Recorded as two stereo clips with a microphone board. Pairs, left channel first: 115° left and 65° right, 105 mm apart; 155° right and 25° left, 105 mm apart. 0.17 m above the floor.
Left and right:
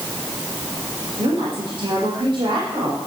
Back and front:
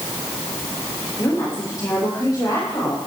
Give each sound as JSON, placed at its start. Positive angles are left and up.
{"t": 1.2, "sound": "a woman speaking", "azimuth_deg": -95, "distance_m": 7.5}